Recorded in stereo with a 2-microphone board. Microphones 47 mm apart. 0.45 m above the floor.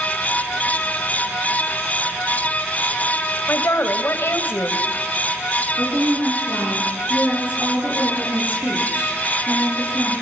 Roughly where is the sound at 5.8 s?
Right.